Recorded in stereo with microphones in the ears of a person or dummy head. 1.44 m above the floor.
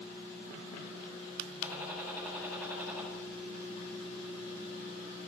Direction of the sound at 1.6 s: 10° right (ahead or behind).